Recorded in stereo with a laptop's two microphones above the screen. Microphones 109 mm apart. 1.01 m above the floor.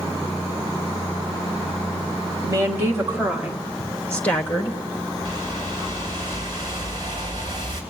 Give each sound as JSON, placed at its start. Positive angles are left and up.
{"t": 2.4, "sound": "a woman speaking", "side_deg": -30, "distance_m": 1.9}
{"t": 5.2, "sound": "a whoosh", "side_deg": -35, "distance_m": 3.0}